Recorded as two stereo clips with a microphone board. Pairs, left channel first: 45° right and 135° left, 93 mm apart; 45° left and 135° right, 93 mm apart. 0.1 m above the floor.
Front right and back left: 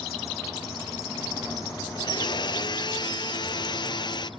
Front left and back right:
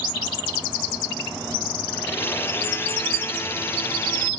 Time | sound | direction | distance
1.9 | a blender | 20° right | 0.5 m